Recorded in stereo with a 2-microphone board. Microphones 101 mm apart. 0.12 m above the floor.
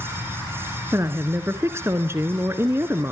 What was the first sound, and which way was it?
A woman speaking, 25° right (ahead or behind).